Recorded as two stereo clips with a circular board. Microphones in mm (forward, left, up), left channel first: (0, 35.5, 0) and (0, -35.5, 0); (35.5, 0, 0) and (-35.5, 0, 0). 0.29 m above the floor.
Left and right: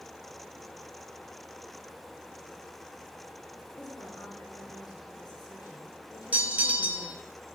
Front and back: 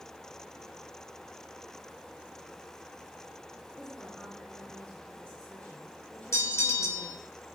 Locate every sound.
3.8 s a woman speaking: 75° left, 3.5 m
6.3 s a bell: 30° right, 1.0 m